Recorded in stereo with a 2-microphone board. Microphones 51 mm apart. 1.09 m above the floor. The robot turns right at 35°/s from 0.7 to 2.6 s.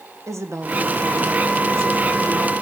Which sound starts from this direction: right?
A woman speaking, at 0.3 s.